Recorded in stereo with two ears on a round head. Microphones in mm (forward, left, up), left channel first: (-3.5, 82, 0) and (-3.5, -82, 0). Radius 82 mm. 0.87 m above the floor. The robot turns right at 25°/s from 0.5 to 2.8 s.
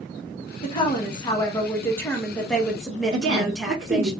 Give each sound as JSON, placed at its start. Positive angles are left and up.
{"t": 0.6, "sound": "a woman speaking", "azimuth_deg": 125, "distance_m": 1.0}
{"t": 3.1, "sound": "a woman speaking", "side_deg": -65, "distance_m": 1.4}